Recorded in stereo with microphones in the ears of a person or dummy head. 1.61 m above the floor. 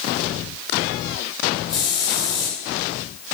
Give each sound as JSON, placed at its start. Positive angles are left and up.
{"t": 1.7, "sound": "a hiss", "side_deg": 30, "distance_m": 5.5}